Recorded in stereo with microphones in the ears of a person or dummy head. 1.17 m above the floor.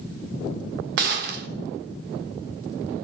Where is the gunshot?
55° right (ahead or behind), 1.1 m.